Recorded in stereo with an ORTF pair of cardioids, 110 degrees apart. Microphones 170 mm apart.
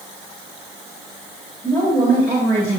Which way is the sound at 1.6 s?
10° right.